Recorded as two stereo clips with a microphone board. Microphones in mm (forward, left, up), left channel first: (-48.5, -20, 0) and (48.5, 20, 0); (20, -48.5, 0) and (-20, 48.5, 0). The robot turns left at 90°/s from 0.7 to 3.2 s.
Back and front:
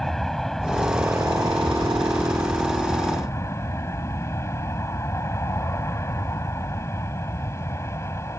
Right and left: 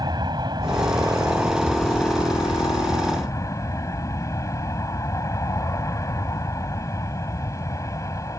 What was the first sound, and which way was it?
An aircraft, 115° left.